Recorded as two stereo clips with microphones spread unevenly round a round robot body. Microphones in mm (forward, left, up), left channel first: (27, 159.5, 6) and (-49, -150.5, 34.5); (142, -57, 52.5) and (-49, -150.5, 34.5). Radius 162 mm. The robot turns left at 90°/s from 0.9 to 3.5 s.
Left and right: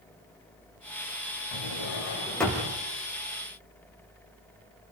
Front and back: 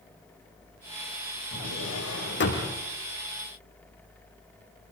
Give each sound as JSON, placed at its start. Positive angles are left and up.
{"t": 1.5, "sound": "a drawer", "azimuth_deg": 70, "distance_m": 7.5}